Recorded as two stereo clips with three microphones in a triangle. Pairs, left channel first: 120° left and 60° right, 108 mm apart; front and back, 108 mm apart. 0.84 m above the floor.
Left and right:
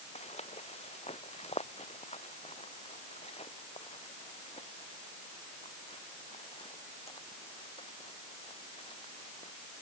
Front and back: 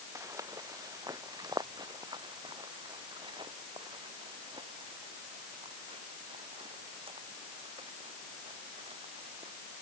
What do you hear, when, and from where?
0.1 s footsteps: 120° left; by 9.5 s 150° left